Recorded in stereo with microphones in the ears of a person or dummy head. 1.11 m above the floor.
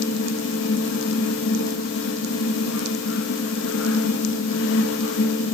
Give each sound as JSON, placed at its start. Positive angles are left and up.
{"t": 0.0, "sound": "a fan", "side_deg": 70, "distance_m": 0.9}